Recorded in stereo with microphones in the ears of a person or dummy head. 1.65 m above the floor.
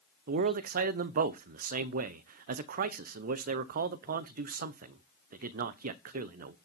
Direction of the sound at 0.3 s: 50° right (ahead or behind).